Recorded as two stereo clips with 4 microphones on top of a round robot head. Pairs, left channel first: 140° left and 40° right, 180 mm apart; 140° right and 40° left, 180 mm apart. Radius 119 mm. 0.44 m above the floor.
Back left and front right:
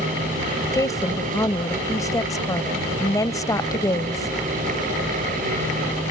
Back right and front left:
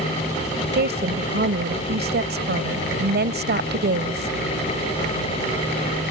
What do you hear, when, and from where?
0.7 s a woman speaking: 65° left